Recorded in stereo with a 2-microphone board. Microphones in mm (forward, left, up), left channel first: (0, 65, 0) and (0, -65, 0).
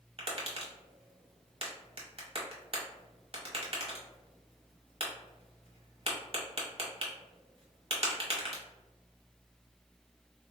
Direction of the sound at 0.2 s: 50° right (ahead or behind).